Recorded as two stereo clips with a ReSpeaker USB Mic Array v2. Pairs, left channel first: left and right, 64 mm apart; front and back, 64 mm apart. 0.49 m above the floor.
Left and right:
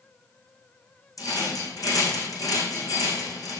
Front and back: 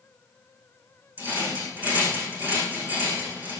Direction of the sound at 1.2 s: 115° left.